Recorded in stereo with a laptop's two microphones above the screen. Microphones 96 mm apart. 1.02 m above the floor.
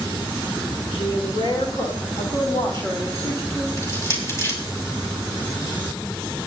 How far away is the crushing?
About 5.5 m.